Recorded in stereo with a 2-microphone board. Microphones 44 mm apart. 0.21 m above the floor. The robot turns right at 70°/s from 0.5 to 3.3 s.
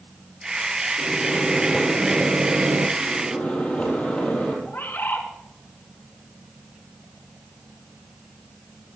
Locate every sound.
1.0 s a microwave: 135° left, 2.5 m; by 2.9 s 90° right, 2.5 m
3.0 s a microwave: 50° left (ahead or behind), 5.5 m; by 4.5 s 25° left (ahead or behind), 5.5 m
4.7 s a bird: 50° left (ahead or behind), 2.5 m